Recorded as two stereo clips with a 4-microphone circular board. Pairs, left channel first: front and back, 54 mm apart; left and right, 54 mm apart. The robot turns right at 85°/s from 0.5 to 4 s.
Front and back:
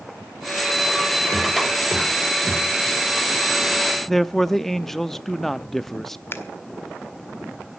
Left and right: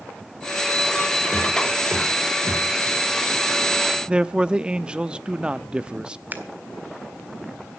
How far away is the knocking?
About 6 m.